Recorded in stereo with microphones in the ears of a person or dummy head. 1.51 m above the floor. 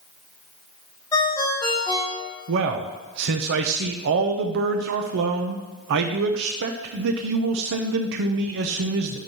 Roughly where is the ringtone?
Left.